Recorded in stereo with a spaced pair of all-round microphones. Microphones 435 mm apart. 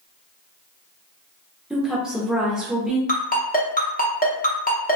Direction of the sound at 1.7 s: Centre (ahead or behind).